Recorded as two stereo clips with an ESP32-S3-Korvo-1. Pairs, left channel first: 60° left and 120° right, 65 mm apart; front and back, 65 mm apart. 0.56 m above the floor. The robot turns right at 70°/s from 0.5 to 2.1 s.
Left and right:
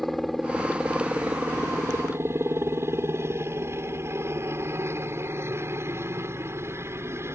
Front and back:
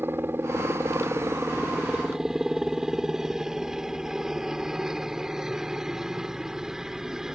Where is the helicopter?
145° left; by 7.3 s 100° right.